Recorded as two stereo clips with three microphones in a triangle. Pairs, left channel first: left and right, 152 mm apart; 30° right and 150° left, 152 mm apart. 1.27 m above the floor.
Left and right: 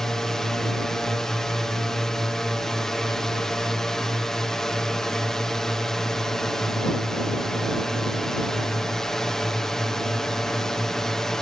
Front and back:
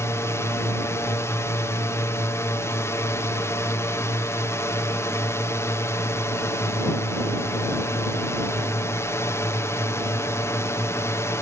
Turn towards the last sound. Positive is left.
turn(degrees=10)